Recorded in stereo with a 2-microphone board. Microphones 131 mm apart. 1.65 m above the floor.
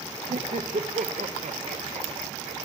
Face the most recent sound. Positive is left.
turn(degrees=-70)  # may be behind; listen again after turning